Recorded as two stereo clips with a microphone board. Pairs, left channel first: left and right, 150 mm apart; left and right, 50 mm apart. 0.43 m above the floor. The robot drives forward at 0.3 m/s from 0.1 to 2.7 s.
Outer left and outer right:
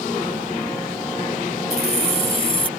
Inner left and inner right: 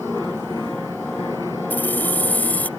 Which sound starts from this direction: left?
Keys jangling, at 1.7 s.